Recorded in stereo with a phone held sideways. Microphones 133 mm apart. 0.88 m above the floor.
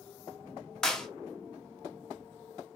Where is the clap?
5° left (ahead or behind), 1.2 m.